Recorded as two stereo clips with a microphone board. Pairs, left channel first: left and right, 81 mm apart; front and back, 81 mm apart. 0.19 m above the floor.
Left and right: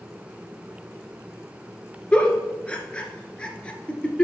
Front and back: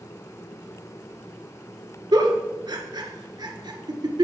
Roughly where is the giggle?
Behind.